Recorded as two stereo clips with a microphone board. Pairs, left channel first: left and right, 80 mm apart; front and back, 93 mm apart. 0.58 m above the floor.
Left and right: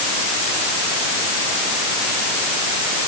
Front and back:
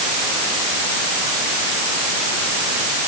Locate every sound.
Only background noise.